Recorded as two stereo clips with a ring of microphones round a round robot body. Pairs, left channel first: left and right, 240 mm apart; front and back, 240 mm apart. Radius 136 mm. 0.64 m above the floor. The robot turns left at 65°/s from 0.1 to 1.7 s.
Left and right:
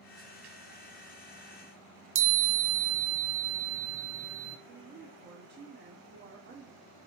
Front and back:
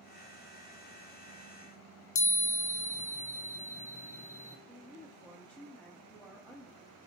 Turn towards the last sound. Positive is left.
turn(degrees=-85)